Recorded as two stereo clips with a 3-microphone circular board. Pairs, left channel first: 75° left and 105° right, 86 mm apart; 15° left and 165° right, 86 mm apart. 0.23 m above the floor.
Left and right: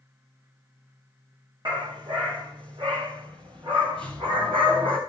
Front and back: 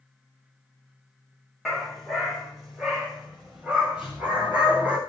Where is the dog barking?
75° right, 7.5 m; by 5.0 s 90° right, 9 m.